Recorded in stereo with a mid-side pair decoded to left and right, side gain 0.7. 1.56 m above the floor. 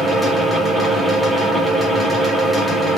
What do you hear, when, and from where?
0.0 s a fan: 5° left, 1.0 m